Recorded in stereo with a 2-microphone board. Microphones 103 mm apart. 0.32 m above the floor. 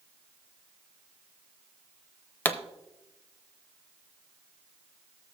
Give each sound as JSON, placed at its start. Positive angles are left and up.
{"t": 2.5, "sound": "a pop", "side_deg": 15, "distance_m": 0.6}